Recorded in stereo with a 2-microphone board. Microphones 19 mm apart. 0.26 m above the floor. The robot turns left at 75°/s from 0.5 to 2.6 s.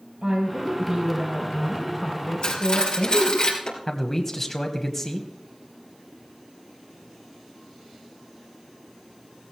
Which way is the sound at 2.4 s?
60° left (ahead or behind).